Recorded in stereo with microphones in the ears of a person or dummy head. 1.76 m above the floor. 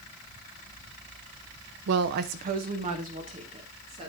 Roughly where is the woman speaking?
Right.